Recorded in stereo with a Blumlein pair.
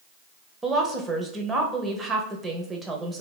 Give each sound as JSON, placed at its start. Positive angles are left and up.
{"t": 0.6, "sound": "a woman speaking", "azimuth_deg": -15, "distance_m": 0.8}